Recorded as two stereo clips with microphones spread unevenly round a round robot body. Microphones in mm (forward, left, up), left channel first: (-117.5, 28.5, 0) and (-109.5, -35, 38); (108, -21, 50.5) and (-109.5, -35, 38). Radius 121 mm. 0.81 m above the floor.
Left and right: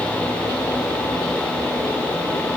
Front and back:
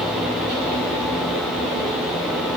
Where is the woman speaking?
No woman speaking in this recording.